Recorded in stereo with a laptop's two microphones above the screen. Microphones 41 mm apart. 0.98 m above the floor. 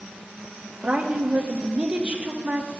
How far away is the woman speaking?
About 1.4 m.